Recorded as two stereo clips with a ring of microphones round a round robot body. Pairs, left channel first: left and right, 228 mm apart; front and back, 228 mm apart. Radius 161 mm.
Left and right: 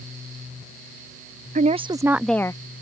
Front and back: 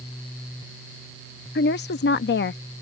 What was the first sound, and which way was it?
A woman speaking, 40° right.